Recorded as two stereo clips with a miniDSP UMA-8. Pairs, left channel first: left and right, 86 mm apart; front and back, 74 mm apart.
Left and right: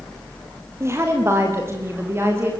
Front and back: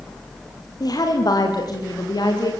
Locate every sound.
0.8 s a woman speaking: 30° right, 6 m